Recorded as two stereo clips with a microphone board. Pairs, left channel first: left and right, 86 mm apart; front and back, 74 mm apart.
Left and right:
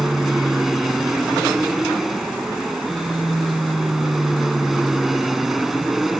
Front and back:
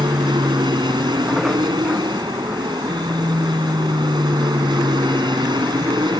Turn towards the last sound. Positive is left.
turn(degrees=-175)